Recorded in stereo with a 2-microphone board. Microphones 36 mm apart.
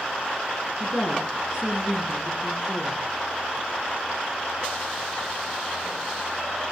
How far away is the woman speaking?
About 3.5 m.